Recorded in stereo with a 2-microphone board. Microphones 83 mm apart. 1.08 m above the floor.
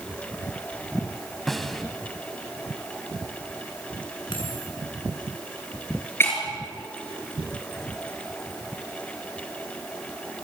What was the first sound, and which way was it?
A snare drum, centre (ahead or behind).